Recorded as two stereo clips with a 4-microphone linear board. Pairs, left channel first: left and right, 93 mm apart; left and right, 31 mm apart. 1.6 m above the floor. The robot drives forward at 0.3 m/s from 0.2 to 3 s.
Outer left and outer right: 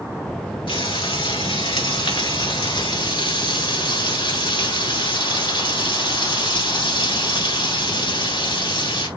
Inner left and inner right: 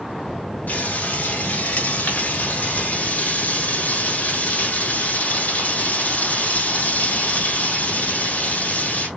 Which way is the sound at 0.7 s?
70° left (ahead or behind).